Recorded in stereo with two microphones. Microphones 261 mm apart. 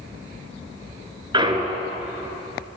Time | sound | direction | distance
1.3 | a clunk | 20° right (ahead or behind) | 1.2 m